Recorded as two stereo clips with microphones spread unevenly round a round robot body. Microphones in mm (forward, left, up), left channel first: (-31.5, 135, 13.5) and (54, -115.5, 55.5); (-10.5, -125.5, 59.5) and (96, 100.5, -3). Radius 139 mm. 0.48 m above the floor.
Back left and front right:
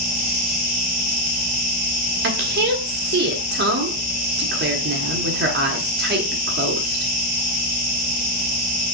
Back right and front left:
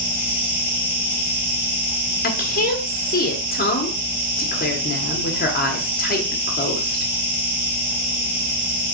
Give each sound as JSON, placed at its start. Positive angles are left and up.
{"t": 0.0, "sound": "an insect", "azimuth_deg": 120, "distance_m": 1.5}
{"t": 2.2, "sound": "a woman speaking", "azimuth_deg": -75, "distance_m": 1.1}